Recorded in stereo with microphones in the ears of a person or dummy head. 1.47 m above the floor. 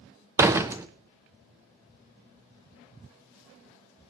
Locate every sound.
0.4 s a door slam: 20° right (ahead or behind), 0.6 m